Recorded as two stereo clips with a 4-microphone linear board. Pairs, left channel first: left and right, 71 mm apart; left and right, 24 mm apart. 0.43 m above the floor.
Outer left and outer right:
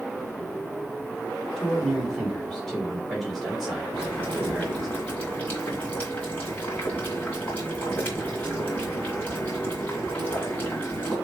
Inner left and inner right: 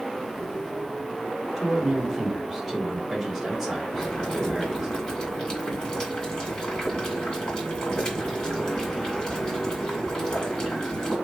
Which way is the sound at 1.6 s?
5° left (ahead or behind).